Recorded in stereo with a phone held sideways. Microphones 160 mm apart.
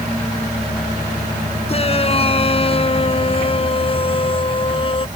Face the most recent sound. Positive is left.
turn(degrees=35)  # may be behind; listen again after turning